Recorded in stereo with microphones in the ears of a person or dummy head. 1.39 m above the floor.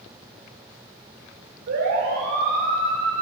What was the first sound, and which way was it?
A siren, 55° right (ahead or behind).